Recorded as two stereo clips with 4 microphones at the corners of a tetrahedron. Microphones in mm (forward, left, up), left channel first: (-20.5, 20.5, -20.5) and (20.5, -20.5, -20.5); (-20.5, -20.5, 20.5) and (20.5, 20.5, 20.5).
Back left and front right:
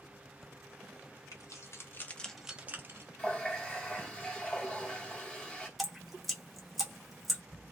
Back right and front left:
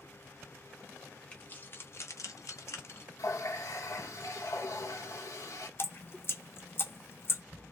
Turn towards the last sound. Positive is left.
turn(degrees=-135)